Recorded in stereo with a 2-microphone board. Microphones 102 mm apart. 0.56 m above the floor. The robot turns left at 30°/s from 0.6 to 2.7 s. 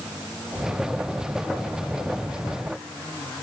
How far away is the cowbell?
I don't hear a cowbell.